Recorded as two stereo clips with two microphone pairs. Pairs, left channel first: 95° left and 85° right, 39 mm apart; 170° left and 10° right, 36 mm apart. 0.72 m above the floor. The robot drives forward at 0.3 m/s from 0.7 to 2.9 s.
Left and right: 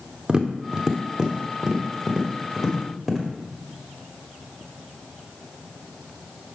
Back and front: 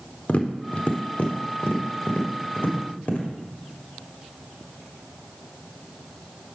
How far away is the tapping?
About 0.8 m.